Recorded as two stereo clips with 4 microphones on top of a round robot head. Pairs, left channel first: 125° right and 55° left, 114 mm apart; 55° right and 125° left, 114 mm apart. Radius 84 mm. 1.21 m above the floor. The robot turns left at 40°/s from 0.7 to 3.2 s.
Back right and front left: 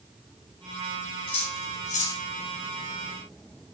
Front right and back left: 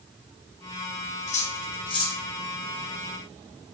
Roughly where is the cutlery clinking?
Right.